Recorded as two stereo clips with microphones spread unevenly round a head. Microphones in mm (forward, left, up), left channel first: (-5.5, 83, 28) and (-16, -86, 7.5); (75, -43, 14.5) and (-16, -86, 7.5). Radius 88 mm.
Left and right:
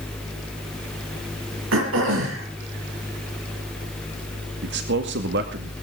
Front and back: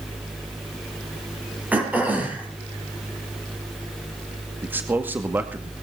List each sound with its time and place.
1.7 s throat clearing: 80° right, 6 m
4.6 s a man speaking: 85° right, 2 m